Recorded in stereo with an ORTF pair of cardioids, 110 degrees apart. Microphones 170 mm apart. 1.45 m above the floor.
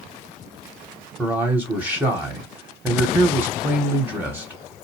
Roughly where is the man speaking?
Ahead.